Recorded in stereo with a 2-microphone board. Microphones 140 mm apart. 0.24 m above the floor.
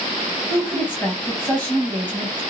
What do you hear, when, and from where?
0.5 s a woman speaking: 15° left (ahead or behind), 1.4 m